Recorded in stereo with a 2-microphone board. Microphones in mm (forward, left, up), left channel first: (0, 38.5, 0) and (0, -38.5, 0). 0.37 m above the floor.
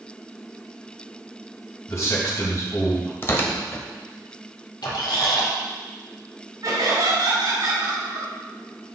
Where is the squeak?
70° left (ahead or behind), 3 m.